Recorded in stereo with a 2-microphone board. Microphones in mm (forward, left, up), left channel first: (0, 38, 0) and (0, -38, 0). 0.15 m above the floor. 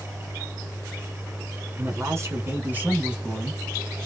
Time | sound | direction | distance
1.8 | a man speaking | 45° right (ahead or behind) | 1.6 m